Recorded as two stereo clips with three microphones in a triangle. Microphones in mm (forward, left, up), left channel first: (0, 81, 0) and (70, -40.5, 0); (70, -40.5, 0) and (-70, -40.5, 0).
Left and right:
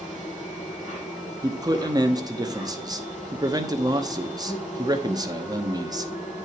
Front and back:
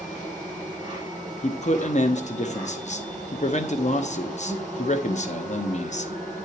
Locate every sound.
0.0 s an insect: 75° left, 7 m
1.4 s a man speaking: 5° right, 1.0 m